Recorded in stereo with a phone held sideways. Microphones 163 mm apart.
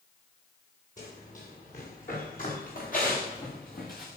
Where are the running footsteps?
55° left (ahead or behind), 10 m; by 4.1 s 65° left (ahead or behind), 5.5 m.